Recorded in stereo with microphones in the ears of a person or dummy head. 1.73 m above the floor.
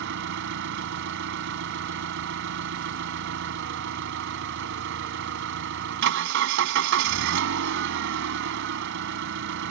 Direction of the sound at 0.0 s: 60° right (ahead or behind).